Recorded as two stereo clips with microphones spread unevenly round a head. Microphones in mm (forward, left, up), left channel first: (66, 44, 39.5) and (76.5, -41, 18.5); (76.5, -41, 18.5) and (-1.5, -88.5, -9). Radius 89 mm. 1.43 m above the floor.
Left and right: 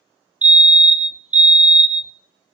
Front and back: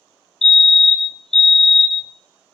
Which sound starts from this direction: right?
A fire alarm, at 0.4 s.